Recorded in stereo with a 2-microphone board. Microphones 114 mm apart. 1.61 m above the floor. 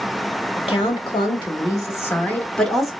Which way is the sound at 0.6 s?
55° left (ahead or behind).